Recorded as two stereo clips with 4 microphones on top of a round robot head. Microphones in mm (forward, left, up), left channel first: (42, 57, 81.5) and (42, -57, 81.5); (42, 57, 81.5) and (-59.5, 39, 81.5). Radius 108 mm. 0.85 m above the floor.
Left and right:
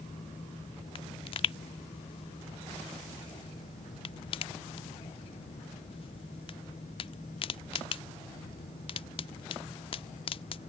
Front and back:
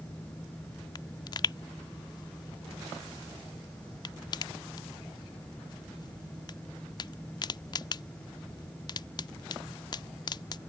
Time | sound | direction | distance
0.9 | a pop | 55° left | ?